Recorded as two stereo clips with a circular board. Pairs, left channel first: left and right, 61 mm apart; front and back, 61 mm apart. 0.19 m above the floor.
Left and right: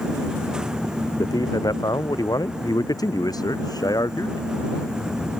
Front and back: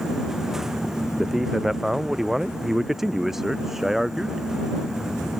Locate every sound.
1.2 s a man speaking: 95° left